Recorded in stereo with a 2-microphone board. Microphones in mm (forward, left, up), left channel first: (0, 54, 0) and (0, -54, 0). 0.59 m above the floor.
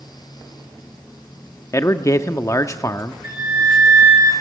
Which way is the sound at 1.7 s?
30° left (ahead or behind).